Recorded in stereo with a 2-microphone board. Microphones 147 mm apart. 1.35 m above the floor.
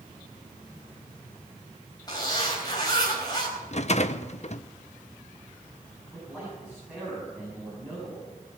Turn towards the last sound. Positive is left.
turn(degrees=-10)  # may be behind; listen again after turning